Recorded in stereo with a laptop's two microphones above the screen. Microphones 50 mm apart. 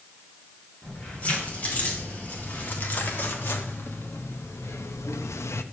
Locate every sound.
0.8 s keys jangling: 35° left (ahead or behind), 2.5 m; by 5.6 s 70° left (ahead or behind), 0.7 m